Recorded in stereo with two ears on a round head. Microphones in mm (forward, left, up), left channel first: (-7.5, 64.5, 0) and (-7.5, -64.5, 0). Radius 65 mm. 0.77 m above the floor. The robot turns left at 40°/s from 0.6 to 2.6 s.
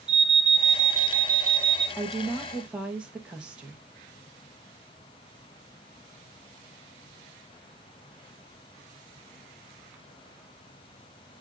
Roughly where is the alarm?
Ahead.